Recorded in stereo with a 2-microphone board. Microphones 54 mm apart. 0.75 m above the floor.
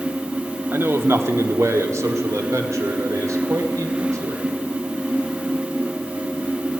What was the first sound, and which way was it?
A man speaking, 45° right (ahead or behind).